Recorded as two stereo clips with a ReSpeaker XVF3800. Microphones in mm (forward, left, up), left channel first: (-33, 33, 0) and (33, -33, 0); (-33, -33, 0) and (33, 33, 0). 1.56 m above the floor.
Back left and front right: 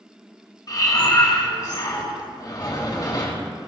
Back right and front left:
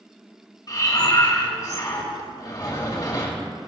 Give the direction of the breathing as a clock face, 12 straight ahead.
6 o'clock.